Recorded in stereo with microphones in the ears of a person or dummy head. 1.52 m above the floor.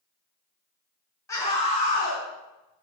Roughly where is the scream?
Centre.